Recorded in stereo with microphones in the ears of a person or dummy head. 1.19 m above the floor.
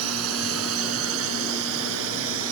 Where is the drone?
80° right; by 2.5 s 75° right (ahead or behind).